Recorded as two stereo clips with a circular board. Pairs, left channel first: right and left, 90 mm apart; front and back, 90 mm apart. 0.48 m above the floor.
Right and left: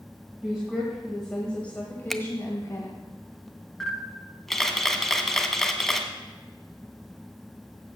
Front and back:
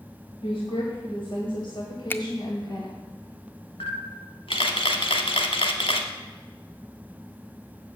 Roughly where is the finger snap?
Ahead.